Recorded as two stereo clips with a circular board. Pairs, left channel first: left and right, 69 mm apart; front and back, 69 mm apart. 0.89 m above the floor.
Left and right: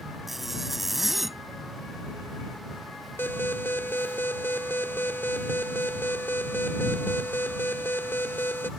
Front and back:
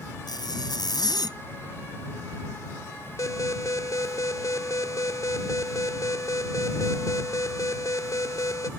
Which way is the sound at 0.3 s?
Straight ahead.